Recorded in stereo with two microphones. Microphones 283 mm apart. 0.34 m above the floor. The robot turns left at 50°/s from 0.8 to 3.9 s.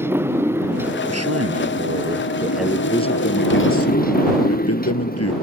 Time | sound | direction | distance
0.0 | a motorcycle | 170° right | ?
1.1 | a man speaking | 100° right | ?